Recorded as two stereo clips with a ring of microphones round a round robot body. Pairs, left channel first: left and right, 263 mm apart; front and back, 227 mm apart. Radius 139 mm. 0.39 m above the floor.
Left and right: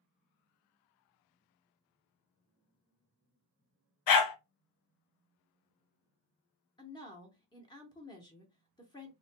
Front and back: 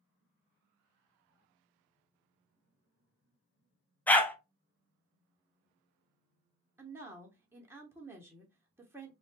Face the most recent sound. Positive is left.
turn(degrees=120)